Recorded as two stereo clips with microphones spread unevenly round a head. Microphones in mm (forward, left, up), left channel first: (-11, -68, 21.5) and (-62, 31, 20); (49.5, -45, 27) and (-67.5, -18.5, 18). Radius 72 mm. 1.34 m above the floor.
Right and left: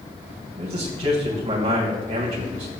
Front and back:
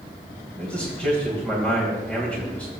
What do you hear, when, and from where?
0.6 s a man speaking: 70° left, 1.8 m